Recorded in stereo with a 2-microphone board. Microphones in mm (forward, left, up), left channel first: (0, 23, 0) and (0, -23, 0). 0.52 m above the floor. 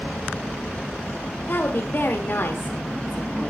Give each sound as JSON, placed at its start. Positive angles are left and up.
{"t": 1.5, "sound": "a woman speaking", "side_deg": 45, "distance_m": 2.0}